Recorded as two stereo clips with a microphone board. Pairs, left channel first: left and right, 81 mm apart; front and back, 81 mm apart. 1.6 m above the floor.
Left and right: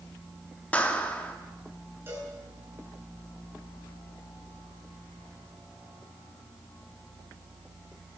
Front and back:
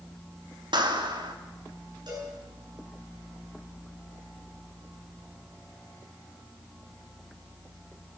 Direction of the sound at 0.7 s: 160° left.